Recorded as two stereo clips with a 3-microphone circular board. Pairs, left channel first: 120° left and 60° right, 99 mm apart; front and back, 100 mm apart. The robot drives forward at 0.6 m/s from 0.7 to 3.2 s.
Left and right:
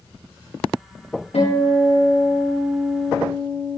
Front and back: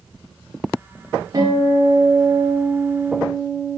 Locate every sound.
1.3 s a guitar: 125° left, 8.5 m; by 3.8 s 135° left, 9 m